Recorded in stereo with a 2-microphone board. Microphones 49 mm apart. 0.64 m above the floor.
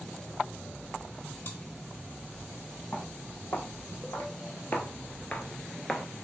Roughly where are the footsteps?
Left.